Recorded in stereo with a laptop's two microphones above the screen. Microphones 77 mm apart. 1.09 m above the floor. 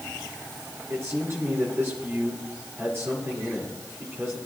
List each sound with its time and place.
0.9 s a man speaking: 35° right (ahead or behind), 4.5 m